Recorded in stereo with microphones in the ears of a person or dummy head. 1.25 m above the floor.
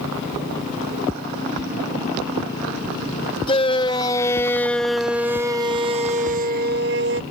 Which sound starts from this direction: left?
A shout, at 3.5 s.